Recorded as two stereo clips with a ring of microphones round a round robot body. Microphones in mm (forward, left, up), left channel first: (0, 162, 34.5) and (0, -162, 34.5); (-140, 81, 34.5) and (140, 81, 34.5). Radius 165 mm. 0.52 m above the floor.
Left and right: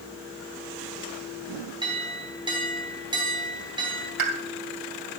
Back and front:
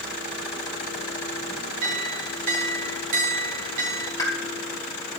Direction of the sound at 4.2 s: 100° right.